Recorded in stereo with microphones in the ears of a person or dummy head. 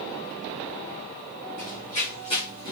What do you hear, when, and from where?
1.6 s running footsteps: 35° left (ahead or behind), 2 m; by 2.7 s 20° left (ahead or behind), 2 m